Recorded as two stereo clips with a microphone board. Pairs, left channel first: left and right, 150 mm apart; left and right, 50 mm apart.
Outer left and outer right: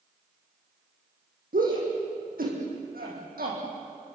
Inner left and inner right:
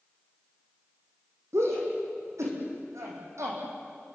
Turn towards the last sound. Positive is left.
turn(degrees=-80)